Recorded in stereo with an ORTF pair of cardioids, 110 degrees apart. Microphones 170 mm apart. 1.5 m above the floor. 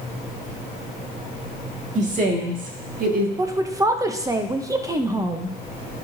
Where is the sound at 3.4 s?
20° right, 0.8 m.